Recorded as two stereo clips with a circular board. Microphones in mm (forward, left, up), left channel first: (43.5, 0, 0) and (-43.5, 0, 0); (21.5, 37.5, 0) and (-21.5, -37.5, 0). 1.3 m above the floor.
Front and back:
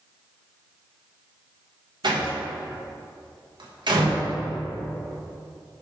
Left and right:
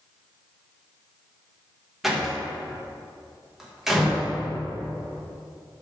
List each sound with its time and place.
2.0 s a door slam: 155° left, 1.1 m